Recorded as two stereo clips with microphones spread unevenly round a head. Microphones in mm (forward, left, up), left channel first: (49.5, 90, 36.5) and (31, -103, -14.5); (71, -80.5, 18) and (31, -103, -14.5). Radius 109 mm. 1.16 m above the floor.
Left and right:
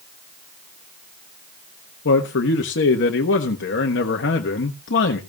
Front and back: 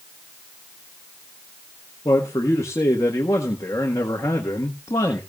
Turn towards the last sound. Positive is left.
turn(degrees=65)